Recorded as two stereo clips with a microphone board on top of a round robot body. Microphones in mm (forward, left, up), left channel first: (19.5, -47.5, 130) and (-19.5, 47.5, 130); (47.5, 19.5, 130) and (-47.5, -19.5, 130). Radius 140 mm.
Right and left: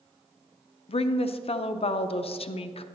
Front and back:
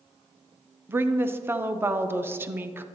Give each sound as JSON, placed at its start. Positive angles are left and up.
{"t": 0.9, "sound": "a woman speaking", "azimuth_deg": -90, "distance_m": 0.5}